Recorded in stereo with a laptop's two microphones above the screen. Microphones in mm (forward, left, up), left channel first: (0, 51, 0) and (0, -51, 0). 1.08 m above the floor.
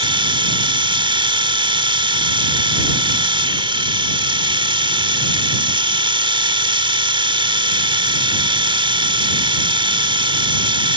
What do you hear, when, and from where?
0.0 s a machine running: 55° right (ahead or behind)